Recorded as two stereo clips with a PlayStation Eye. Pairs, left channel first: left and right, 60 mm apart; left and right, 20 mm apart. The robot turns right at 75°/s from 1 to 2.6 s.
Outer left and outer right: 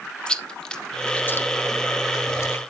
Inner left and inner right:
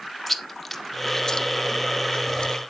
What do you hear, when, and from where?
0.3 s chewing: 15° left (ahead or behind), 0.8 m; by 2.6 s 40° left (ahead or behind), 0.8 m